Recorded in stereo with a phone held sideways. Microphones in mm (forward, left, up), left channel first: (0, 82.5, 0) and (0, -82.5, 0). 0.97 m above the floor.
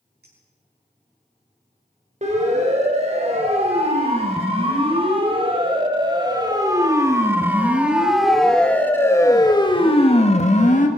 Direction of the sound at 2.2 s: 45° right (ahead or behind).